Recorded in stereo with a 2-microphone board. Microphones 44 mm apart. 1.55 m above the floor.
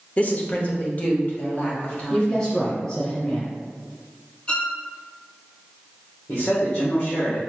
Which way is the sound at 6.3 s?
80° left.